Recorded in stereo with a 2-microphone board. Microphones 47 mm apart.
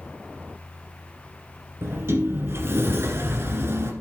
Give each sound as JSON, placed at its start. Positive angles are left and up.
{"t": 1.8, "sound": "a sliding door", "side_deg": -60, "distance_m": 1.9}